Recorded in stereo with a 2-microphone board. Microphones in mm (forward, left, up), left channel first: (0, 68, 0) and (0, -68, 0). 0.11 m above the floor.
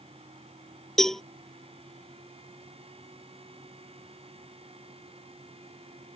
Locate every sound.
1.0 s a cowbell: 5° left (ahead or behind)